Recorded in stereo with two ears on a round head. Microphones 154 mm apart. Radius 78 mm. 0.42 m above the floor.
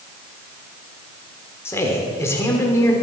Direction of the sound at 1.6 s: 15° left (ahead or behind).